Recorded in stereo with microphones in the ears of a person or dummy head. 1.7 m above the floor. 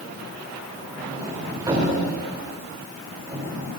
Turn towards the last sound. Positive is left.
turn(degrees=-25)  # may be behind; listen again after turning